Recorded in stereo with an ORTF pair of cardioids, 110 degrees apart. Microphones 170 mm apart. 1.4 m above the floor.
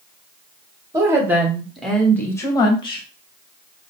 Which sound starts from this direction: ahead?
A woman speaking, at 0.9 s.